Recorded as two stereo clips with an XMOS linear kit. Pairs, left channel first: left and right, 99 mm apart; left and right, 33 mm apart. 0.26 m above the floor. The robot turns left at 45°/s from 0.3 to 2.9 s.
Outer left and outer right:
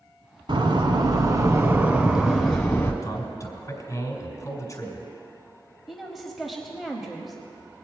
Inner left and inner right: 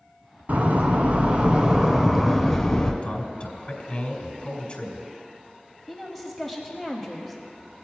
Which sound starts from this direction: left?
A man speaking, at 3.0 s.